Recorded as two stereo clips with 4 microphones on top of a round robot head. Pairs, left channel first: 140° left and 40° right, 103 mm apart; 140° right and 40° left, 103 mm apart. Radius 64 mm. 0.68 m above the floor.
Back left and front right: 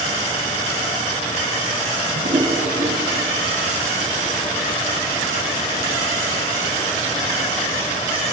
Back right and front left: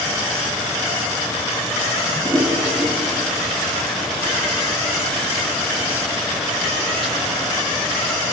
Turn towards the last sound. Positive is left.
turn(degrees=-50)